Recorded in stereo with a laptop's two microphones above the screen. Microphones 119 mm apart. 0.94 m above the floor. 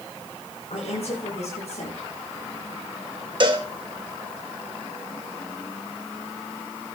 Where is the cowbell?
45° right (ahead or behind), 1.0 m.